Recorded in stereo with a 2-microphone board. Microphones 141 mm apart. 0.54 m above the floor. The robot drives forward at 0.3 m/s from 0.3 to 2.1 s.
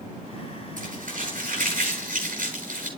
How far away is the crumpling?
About 9.5 m.